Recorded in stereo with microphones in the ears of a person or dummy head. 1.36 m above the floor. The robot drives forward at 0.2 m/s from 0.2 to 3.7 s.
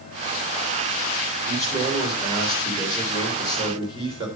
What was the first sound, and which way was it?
A man speaking, 30° right (ahead or behind).